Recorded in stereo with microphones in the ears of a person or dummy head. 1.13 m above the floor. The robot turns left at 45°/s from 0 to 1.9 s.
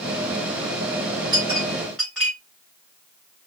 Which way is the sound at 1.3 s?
25° right (ahead or behind).